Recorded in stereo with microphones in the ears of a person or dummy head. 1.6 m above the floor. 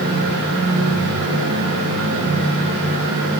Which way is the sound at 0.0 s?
70° right (ahead or behind).